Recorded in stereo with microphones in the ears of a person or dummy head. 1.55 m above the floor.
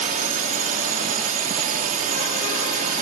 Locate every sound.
0.0 s a drone: 40° right (ahead or behind)